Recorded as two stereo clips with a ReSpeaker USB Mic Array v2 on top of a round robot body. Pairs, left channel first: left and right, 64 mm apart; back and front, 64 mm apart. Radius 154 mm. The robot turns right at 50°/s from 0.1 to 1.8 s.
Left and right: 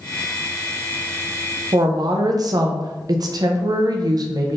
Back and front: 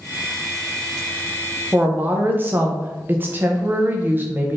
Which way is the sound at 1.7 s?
65° right.